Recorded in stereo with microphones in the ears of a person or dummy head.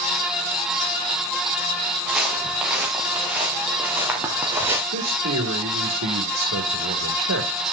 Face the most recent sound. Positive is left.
turn(degrees=-85)